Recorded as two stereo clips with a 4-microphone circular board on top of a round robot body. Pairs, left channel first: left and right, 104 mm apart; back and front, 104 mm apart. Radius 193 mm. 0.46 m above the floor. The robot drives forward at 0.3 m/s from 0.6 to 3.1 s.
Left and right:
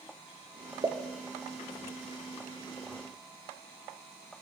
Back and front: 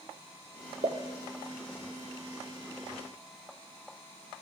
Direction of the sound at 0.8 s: 30° right.